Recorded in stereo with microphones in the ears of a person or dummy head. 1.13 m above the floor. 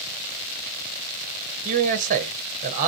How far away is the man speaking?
About 0.8 m.